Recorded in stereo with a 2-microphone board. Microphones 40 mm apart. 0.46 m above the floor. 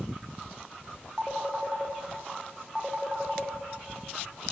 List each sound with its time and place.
1.2 s a phone ringing: 15° right (ahead or behind), 0.7 m